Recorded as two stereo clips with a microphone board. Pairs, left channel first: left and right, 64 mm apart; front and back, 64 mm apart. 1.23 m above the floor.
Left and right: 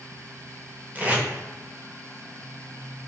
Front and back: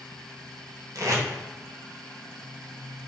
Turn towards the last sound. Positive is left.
turn(degrees=-155)